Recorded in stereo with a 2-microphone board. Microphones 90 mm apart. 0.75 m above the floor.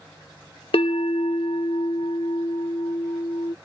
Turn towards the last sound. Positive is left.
turn(degrees=75)  # may be behind; listen again after turning